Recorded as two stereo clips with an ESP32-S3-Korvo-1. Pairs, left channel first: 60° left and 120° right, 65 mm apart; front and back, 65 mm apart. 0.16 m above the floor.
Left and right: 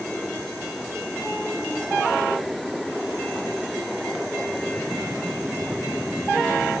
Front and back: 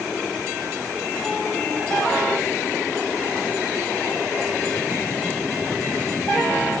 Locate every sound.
Only background noise.